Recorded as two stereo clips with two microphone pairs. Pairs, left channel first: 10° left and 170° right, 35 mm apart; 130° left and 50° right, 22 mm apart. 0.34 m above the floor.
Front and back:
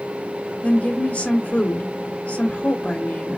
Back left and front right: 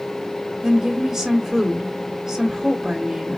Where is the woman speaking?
5° left, 1.5 m.